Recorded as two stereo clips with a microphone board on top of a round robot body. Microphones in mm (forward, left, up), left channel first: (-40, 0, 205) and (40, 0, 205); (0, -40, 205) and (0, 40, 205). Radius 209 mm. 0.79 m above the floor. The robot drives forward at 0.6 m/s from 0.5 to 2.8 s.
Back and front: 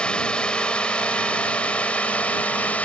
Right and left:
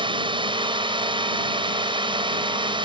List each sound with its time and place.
0.0 s a drone: 100° left; by 2.9 s 105° left